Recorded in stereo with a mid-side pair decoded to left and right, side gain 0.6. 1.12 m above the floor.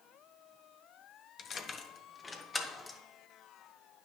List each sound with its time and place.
1.4 s keys jangling: 45° left, 1.0 m; by 3.0 s 20° left, 2 m